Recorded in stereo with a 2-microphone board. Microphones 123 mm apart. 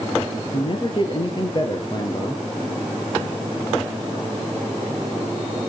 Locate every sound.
0.5 s a man speaking: 45° left (ahead or behind), 3 m; by 2.4 s 35° left (ahead or behind), 2 m